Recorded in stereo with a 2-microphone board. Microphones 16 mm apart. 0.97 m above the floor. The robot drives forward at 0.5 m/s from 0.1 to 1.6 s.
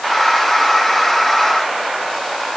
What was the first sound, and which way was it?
Only background noise.